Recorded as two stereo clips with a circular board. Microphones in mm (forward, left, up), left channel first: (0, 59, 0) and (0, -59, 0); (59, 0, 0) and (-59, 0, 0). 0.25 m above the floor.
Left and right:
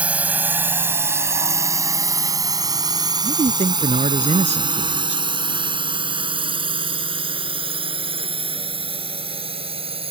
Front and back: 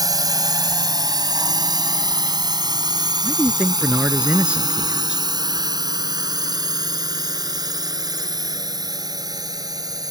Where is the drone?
160° right; by 10.1 s 125° right.